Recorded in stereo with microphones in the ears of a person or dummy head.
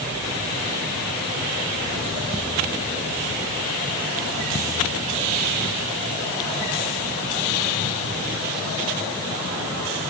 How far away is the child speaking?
I don't hear a child speaking.